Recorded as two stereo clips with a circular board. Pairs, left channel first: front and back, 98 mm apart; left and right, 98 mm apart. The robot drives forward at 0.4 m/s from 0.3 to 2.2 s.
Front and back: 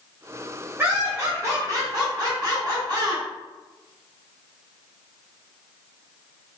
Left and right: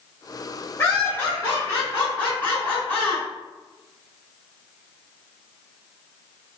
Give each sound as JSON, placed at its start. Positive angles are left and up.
{"t": 0.8, "sound": "laughter", "azimuth_deg": 130, "distance_m": 1.0}